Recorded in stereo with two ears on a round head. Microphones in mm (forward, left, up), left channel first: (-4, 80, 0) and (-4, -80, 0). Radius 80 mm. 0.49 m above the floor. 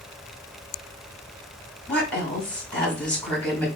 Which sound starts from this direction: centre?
A woman speaking, at 1.9 s.